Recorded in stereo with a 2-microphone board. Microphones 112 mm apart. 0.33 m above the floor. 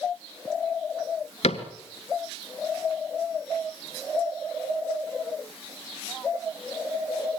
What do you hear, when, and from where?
1.4 s a cupboard door: 75° left (ahead or behind), 1.6 m